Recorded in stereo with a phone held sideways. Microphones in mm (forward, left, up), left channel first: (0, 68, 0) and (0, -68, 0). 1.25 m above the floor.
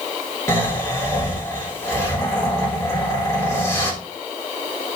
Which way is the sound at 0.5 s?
20° left (ahead or behind).